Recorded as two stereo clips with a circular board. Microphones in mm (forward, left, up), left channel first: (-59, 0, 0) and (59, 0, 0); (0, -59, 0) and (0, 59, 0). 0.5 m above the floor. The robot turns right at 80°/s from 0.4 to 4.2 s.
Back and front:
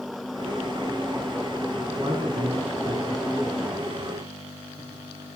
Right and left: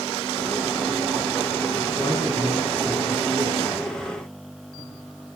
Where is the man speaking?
45° right, 6 m; by 3.7 s 90° left, 6 m.